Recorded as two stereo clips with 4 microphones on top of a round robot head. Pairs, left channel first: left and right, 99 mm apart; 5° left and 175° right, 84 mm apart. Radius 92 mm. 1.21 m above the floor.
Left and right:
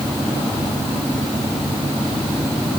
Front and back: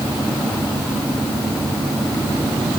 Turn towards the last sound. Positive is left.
No sound to turn to.